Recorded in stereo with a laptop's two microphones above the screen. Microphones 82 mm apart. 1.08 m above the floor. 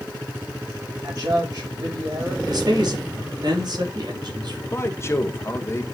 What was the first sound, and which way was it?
A man speaking, 50° right (ahead or behind).